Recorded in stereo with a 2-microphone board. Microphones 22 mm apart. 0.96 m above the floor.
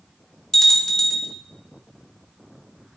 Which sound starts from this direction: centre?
A bell, at 0.5 s.